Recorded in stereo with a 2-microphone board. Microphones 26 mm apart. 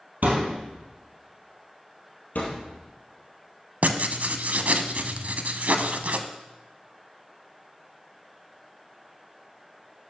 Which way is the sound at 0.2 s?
70° right (ahead or behind).